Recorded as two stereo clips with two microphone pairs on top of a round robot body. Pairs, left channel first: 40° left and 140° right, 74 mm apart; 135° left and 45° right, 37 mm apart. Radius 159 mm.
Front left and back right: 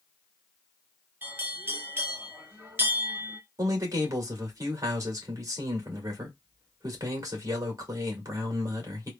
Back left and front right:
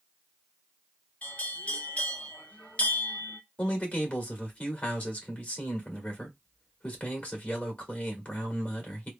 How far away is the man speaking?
About 1.9 m.